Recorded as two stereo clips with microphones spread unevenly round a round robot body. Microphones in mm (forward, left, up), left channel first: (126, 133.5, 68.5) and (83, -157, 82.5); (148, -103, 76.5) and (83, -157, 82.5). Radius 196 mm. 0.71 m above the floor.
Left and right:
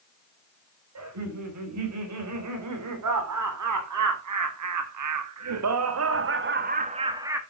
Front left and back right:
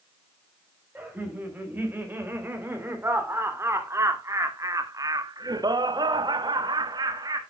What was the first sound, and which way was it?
Laughter, 70° right.